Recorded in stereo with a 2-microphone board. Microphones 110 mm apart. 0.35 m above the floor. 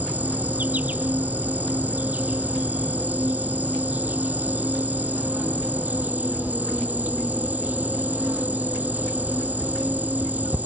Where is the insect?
15° right (ahead or behind).